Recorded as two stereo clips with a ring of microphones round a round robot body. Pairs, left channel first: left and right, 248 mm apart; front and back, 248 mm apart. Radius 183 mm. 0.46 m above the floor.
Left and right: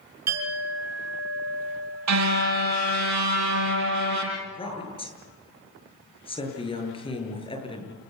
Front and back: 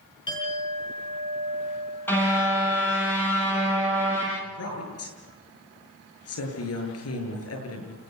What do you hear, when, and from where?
0.3 s a clink: 75° right, 5.5 m
2.1 s a car horn: 85° right, 7 m
4.4 s a woman speaking: 20° left, 8.5 m